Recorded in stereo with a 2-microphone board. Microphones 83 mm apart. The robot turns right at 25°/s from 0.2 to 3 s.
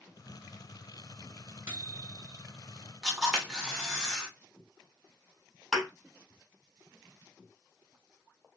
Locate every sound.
1.7 s a microwave: 25° right (ahead or behind), 1.8 m; by 2.4 s 5° right (ahead or behind), 1.8 m
3.0 s a camera shutter: 5° right (ahead or behind), 1.7 m
5.7 s a thud: centre (ahead or behind), 3 m